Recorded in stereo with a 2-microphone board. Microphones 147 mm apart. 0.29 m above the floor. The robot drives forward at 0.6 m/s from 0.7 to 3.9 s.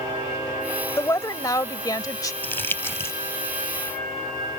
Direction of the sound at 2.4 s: 15° left (ahead or behind).